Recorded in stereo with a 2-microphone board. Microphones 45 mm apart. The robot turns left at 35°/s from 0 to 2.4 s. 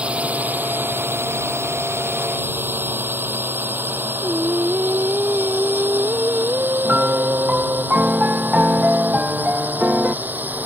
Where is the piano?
30° right (ahead or behind).